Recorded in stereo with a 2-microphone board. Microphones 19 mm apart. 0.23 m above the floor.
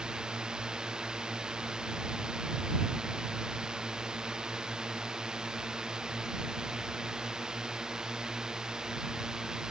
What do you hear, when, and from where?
0.0 s a drone: 45° right (ahead or behind); by 9.7 s 35° right (ahead or behind)